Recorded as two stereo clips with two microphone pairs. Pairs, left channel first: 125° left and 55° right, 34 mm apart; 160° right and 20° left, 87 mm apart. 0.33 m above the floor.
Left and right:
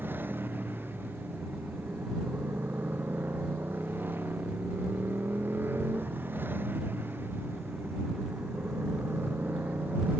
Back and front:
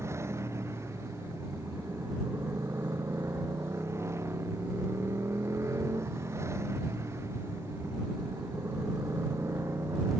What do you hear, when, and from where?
0.0 s a motorcycle: 40° right